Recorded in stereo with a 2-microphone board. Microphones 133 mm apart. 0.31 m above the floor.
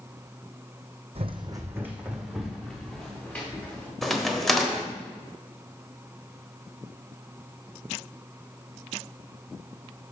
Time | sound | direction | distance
1.1 | running footsteps | 50° right (ahead or behind) | 0.8 m
4.0 | a crack | centre (ahead or behind) | 1.1 m